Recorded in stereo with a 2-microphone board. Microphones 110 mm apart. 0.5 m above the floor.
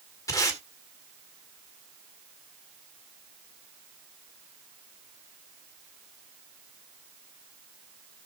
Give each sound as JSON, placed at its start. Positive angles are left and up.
{"t": 0.3, "sound": "tape being pulled", "side_deg": 30, "distance_m": 1.8}